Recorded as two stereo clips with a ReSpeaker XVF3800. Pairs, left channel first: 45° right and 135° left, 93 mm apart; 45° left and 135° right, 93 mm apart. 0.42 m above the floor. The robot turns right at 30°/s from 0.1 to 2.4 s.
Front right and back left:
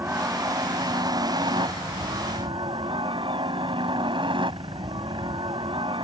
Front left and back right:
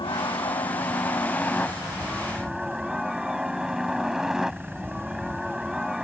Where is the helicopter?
70° left; by 6.0 s 140° left.